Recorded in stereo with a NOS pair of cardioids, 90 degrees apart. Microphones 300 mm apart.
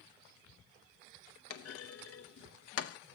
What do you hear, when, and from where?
1.5 s a clunk: 55° left, 0.7 m